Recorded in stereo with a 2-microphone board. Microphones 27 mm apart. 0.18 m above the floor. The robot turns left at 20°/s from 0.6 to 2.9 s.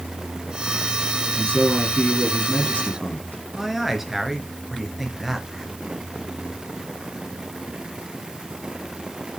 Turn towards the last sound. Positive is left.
turn(degrees=-5)  # may be behind; listen again after turning